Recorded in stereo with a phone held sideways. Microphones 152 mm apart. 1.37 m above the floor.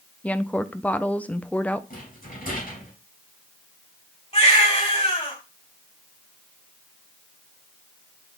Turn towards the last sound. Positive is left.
turn(degrees=45)  # may be behind; listen again after turning